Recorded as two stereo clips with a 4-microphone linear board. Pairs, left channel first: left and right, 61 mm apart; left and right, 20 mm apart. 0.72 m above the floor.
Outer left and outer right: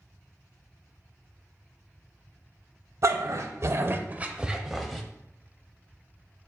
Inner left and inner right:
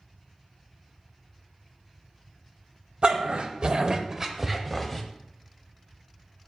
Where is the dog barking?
60° right (ahead or behind), 0.8 m; by 5.0 s 5° left (ahead or behind), 0.9 m.